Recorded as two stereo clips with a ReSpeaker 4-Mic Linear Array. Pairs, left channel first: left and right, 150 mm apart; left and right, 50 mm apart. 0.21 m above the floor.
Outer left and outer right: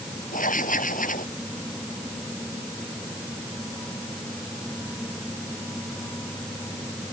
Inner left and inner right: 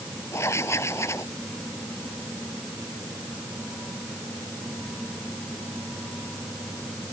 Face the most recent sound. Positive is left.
turn(degrees=70)  # may be behind; listen again after turning